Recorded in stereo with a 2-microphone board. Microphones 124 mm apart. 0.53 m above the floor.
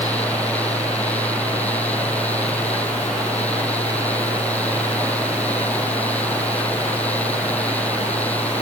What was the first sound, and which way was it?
Only background noise.